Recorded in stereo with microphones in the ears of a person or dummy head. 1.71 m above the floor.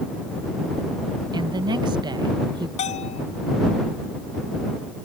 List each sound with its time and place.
1.3 s a woman speaking: 25° right (ahead or behind)
2.8 s a bell: 35° left (ahead or behind)